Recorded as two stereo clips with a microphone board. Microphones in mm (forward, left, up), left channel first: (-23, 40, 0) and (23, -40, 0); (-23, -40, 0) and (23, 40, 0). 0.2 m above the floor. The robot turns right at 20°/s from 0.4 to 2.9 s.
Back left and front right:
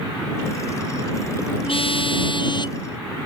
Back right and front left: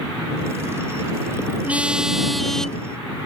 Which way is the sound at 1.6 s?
135° left.